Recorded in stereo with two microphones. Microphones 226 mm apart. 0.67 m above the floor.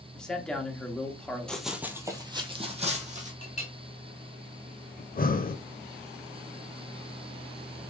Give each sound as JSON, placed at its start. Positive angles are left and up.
{"t": 0.1, "sound": "a man speaking", "side_deg": 5, "distance_m": 1.1}
{"t": 1.5, "sound": "running footsteps", "side_deg": 5, "distance_m": 0.8}
{"t": 3.4, "sound": "a clink", "side_deg": 35, "distance_m": 2.5}
{"t": 5.0, "sound": "breathing", "side_deg": 40, "distance_m": 0.5}